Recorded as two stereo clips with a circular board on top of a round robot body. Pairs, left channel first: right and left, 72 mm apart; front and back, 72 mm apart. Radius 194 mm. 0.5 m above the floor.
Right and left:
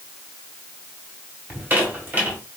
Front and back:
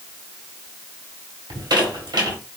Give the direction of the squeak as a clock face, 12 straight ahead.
7 o'clock.